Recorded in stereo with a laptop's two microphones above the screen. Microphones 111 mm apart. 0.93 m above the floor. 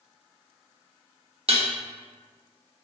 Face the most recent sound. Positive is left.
turn(degrees=-60)  # may be behind; listen again after turning